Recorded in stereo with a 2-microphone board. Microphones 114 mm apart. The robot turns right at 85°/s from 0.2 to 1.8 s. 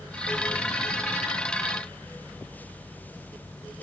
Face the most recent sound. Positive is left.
No sound to turn to.